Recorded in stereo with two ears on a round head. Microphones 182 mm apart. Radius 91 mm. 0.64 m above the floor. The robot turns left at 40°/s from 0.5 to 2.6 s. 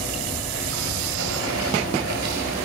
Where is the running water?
50° right, 2.5 m; by 2.7 s 135° right, 2.5 m.